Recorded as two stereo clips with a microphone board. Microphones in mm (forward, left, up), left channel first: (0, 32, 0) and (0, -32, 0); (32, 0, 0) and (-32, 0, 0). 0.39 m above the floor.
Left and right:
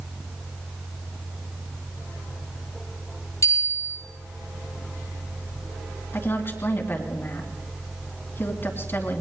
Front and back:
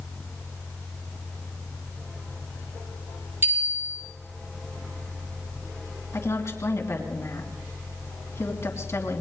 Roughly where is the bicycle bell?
Behind left.